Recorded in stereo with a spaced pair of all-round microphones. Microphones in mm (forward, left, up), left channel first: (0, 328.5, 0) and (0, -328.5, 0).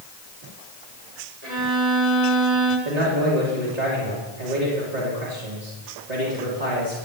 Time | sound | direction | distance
1.4 | a violin | 65° right (ahead or behind) | 7 m
2.9 | a man speaking | 80° right | 3.5 m